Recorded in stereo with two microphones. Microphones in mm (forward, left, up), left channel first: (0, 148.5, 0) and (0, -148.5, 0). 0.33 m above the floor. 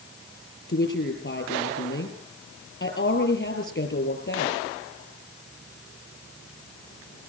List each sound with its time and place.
0.7 s a woman speaking: 35° left (ahead or behind), 7.5 m